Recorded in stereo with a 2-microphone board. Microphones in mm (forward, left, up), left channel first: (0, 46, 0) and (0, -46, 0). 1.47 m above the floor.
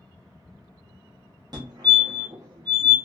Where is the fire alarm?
40° right (ahead or behind), 1.1 m.